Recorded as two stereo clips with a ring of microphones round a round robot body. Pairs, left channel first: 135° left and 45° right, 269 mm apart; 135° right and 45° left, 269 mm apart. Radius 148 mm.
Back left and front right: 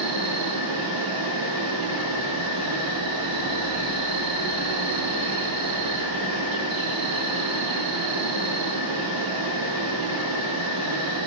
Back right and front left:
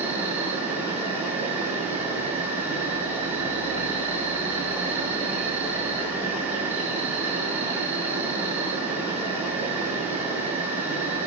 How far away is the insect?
About 2.5 m.